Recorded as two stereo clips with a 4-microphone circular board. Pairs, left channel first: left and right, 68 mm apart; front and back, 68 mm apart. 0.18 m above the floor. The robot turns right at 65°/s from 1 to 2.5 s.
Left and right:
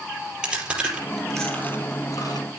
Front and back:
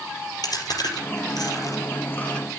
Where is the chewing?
10° right, 4 m; by 2.5 s 85° left, 4 m.